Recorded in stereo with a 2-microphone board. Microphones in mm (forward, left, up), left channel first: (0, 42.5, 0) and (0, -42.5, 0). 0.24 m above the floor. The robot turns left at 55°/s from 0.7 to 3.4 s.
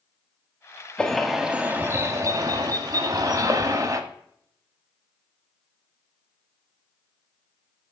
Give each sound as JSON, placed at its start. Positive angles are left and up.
{"t": 1.0, "sound": "a bird", "azimuth_deg": 15, "distance_m": 0.7}